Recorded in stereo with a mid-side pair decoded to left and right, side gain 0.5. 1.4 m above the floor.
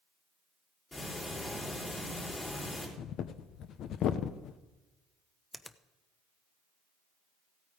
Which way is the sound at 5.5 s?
15° left.